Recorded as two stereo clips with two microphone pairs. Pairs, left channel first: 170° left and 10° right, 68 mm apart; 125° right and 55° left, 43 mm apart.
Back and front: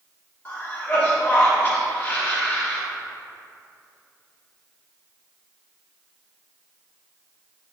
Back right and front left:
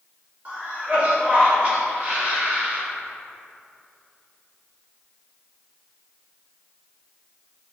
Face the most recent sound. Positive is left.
turn(degrees=110)